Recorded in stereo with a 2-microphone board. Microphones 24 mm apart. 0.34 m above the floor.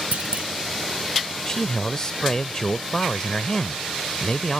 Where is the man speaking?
25° left (ahead or behind).